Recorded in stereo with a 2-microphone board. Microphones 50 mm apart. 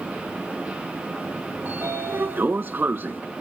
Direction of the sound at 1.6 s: 45° right (ahead or behind).